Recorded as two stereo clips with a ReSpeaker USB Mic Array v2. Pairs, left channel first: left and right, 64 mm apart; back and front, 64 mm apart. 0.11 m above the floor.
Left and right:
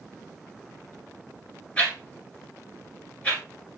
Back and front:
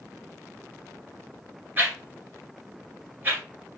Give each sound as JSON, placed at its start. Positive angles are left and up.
{"t": 1.8, "sound": "a whoosh", "azimuth_deg": 35, "distance_m": 1.9}